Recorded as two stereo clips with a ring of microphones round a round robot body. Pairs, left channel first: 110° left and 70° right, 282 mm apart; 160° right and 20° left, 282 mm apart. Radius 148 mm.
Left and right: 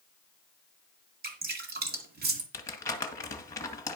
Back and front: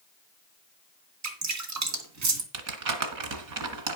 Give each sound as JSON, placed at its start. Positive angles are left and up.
{"t": 1.2, "sound": "dripping", "azimuth_deg": -10, "distance_m": 2.0}
{"t": 2.5, "sound": "crumpling", "azimuth_deg": 35, "distance_m": 1.8}